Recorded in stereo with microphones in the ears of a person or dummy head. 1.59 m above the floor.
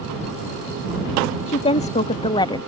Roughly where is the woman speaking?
Left.